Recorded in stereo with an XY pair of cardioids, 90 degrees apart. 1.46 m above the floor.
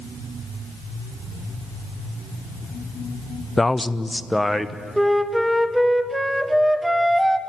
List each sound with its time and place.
3.6 s a man speaking: 15° left, 0.6 m; by 4.8 s 5° left, 1.3 m
5.0 s a flute: 5° right, 1.1 m